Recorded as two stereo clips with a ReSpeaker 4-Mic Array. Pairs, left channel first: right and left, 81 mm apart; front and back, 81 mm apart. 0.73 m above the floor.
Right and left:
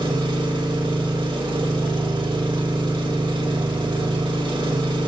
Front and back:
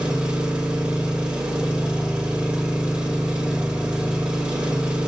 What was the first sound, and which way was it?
An engine running, 100° left.